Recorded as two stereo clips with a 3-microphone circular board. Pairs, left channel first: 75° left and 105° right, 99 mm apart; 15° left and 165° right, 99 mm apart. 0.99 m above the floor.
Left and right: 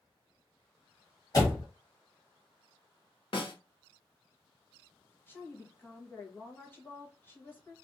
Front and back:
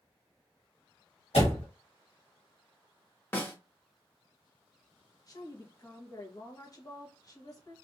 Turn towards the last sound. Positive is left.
turn(degrees=20)